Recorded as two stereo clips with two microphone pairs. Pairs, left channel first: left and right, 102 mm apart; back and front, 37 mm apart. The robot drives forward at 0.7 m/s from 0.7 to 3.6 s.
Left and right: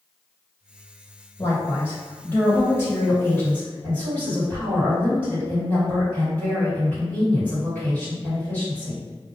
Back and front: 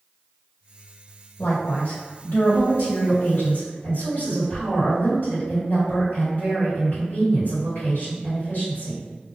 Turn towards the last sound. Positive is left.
turn(degrees=165)